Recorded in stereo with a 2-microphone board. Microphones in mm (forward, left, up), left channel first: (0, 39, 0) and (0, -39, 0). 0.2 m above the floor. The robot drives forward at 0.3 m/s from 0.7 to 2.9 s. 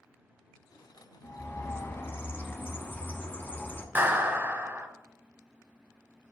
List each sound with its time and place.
1.2 s a bird: 35° left (ahead or behind), 0.8 m; by 3.9 s 25° left (ahead or behind), 1.0 m
4.0 s a clap: 25° right (ahead or behind), 1.0 m